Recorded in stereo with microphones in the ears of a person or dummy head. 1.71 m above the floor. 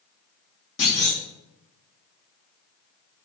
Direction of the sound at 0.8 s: 65° left (ahead or behind).